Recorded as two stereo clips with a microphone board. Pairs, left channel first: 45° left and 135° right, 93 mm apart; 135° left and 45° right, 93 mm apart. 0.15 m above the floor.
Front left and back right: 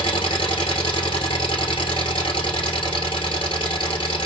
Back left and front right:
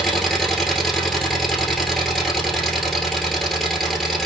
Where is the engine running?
45° left, 1.5 m.